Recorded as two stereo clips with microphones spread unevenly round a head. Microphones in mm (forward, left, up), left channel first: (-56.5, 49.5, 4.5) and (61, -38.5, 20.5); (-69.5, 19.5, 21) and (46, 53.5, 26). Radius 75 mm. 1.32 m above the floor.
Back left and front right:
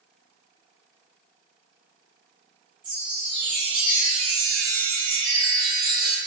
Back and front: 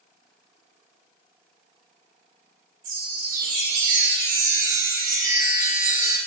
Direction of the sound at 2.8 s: 20° left.